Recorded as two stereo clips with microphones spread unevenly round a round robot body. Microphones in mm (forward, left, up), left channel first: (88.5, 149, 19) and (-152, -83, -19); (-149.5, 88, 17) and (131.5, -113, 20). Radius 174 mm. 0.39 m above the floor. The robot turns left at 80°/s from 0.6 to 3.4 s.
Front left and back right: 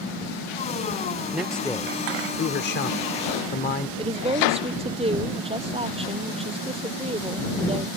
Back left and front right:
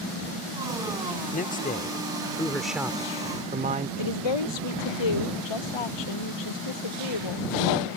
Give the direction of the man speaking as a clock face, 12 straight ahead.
7 o'clock.